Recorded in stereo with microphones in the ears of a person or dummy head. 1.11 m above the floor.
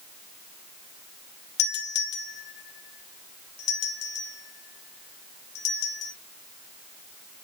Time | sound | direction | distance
1.6 | a doorbell | 60° left (ahead or behind) | 3 m